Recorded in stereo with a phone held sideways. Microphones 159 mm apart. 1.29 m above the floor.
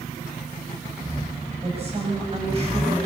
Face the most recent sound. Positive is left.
turn(degrees=-40)  # may be behind; listen again after turning